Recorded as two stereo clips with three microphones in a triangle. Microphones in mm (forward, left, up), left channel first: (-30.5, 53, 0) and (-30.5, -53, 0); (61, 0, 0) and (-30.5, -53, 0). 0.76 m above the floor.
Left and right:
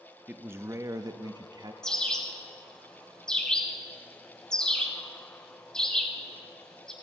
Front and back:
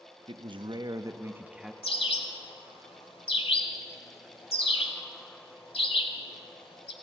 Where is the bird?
5° left, 1.2 m.